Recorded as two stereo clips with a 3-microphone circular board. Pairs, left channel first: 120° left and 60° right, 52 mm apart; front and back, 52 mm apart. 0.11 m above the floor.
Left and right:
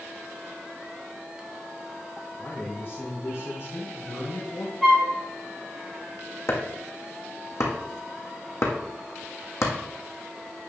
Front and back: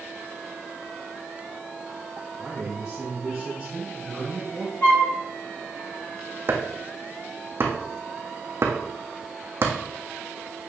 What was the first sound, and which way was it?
A man speaking, 110° left.